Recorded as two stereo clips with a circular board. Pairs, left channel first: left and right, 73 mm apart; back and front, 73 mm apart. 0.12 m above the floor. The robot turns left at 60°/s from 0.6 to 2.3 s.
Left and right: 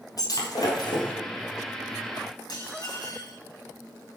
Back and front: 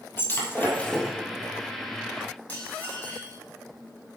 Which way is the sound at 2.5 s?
110° left.